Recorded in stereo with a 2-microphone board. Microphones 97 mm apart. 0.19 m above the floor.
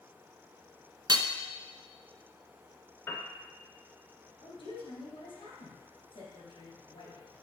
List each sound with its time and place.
1.1 s hammering: 45° right (ahead or behind), 0.5 m
3.1 s a piano: 25° left (ahead or behind), 1.4 m
4.4 s a woman speaking: 65° left (ahead or behind), 3 m